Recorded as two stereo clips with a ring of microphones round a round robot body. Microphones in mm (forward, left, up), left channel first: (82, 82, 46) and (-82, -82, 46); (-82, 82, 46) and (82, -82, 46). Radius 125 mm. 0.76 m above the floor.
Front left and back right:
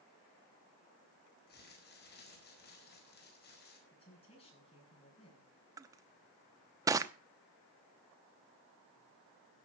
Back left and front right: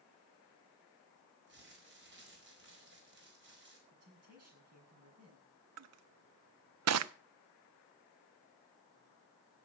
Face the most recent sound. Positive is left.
turn(degrees=-60)